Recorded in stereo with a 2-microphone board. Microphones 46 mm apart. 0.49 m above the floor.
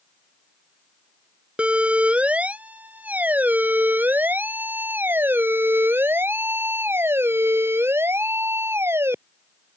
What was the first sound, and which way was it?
A siren, 25° right (ahead or behind).